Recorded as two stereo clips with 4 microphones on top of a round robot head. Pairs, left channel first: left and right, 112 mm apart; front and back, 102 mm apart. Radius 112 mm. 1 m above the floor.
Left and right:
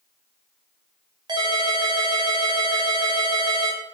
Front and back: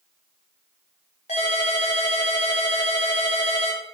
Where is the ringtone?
45° right, 0.7 m.